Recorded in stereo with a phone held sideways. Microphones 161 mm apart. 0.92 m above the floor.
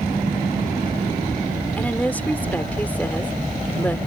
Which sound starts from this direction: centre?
A woman speaking, at 1.8 s.